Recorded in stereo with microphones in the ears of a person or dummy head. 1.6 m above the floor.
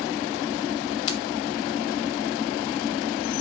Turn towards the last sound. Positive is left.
turn(degrees=30)  # may be behind; listen again after turning